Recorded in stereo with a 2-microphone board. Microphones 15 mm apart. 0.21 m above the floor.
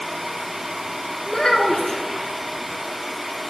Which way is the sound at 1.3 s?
65° left (ahead or behind).